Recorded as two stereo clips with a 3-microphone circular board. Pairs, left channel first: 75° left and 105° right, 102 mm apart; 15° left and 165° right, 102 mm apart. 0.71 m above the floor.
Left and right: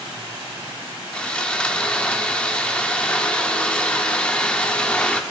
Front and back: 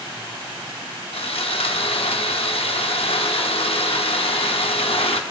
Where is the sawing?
5° right, 0.7 m.